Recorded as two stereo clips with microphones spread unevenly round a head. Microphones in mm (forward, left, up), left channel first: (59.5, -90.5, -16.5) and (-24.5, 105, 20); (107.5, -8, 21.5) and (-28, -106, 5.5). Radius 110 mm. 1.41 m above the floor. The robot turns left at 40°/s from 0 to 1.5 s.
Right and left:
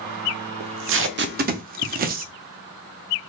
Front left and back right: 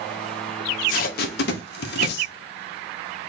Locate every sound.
0.6 s tape being pulled: 95° left, 0.6 m; by 2.3 s 60° left, 0.6 m